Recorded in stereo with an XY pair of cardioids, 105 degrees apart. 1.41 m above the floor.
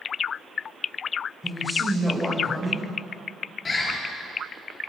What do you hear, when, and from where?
1.4 s a man speaking: 15° left, 7 m
3.6 s a bird: 35° left, 5.5 m